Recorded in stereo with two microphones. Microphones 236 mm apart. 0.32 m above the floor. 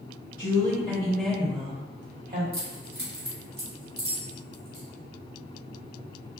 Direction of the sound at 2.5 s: 55° right (ahead or behind).